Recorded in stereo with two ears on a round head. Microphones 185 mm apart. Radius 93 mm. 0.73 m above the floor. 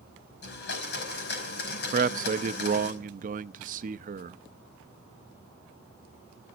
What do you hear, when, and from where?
0.4 s a blender: 50° left (ahead or behind), 5 m
1.9 s a man speaking: 40° right (ahead or behind), 0.6 m